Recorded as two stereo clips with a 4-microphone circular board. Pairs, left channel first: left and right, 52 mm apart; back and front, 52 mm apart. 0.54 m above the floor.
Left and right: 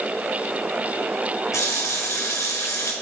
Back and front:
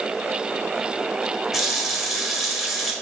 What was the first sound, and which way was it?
A running tap, 90° left.